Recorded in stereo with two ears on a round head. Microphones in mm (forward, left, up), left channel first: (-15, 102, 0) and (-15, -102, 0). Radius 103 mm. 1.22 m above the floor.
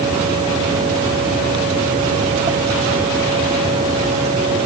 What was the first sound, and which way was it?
Only background noise.